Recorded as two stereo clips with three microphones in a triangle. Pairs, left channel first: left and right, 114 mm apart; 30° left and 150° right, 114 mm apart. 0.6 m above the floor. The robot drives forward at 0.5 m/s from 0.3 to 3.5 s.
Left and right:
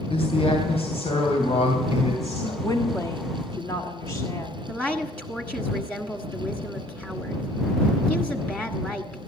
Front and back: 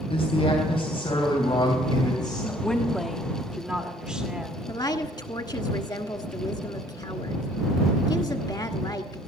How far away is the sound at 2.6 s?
About 1.3 m.